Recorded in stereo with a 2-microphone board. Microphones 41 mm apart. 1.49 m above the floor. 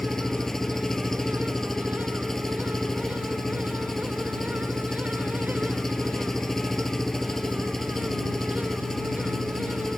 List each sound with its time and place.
0.0 s an engine running: 10° left (ahead or behind)